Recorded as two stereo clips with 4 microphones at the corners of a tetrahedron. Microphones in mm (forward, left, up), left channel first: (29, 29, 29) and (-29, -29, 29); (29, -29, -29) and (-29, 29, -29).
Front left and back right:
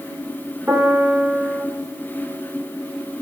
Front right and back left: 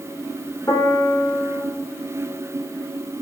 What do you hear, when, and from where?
0.7 s a piano: 80° right, 0.8 m